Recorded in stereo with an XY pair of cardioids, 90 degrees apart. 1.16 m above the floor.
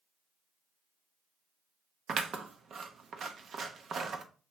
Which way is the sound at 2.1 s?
60° right.